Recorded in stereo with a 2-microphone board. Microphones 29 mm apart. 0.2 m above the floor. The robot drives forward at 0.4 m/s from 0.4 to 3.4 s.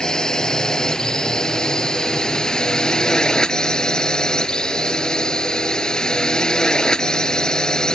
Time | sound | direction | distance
0.0 | a drone | 25° left (ahead or behind) | ?